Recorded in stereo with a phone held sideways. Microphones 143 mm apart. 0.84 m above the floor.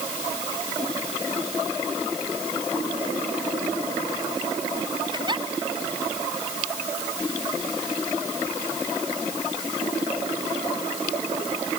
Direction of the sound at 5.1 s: 30° right (ahead or behind).